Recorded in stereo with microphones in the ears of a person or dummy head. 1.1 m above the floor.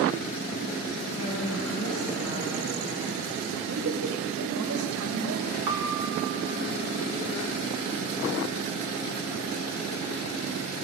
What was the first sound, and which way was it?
A woman speaking, 85° left.